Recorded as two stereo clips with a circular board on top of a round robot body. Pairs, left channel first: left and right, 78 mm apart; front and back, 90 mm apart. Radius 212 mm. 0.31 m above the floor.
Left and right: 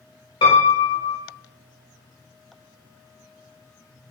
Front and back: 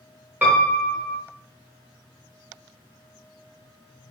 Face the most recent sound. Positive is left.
turn(degrees=105)